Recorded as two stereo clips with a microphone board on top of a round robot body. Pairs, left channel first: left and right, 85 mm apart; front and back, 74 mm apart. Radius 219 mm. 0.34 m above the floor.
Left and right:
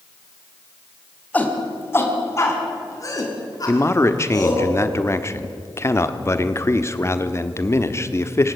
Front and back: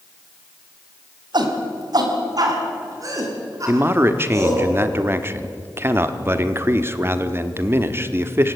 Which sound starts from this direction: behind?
A shout, at 1.3 s.